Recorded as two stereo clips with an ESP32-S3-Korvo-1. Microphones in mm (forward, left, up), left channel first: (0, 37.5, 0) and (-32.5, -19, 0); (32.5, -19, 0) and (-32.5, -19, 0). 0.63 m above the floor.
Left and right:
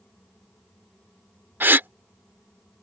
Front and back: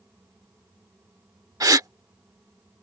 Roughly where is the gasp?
Behind.